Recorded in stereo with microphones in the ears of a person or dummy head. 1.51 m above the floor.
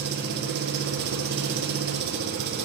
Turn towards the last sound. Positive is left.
turn(degrees=-60)  # may be behind; listen again after turning